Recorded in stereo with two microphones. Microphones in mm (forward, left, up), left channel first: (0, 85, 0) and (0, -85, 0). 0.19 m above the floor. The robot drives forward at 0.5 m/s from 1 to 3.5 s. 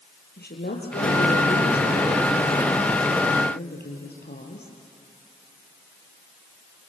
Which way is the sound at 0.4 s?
75° left (ahead or behind).